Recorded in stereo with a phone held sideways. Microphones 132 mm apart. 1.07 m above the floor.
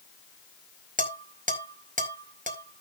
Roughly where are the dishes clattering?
Right.